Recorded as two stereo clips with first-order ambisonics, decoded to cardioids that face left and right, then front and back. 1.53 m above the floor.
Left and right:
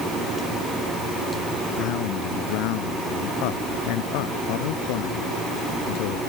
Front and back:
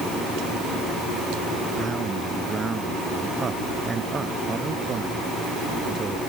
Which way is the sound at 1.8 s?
105° left.